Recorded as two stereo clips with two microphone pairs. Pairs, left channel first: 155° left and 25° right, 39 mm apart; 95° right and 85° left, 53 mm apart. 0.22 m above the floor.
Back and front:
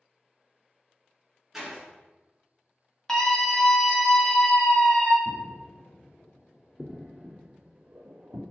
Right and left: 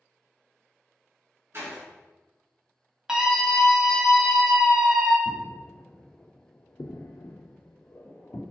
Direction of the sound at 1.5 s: 60° left.